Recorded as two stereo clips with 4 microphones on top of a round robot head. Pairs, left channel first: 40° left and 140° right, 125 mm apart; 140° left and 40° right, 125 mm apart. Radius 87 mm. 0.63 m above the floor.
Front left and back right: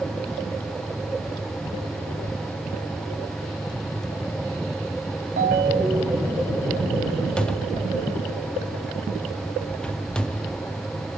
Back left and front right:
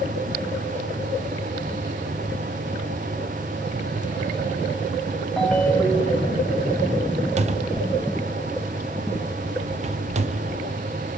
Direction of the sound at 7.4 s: 40° right.